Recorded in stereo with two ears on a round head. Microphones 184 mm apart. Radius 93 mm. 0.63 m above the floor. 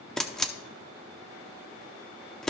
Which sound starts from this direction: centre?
A camera shutter, at 0.2 s.